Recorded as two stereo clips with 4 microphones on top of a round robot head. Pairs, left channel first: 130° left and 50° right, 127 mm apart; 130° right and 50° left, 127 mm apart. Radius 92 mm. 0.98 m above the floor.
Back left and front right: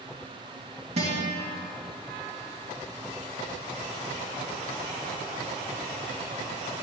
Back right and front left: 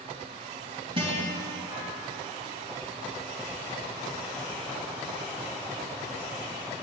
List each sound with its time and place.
1.0 s a guitar: 5° right, 2.5 m